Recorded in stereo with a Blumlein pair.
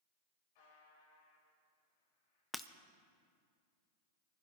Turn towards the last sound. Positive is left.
turn(degrees=5)